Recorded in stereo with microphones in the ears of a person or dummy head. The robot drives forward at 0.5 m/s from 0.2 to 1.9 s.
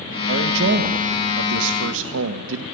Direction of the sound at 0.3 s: 50° right (ahead or behind).